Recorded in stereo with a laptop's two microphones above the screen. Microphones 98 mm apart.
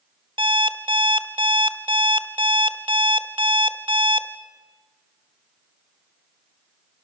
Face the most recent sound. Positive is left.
turn(degrees=-60)  # may be behind; listen again after turning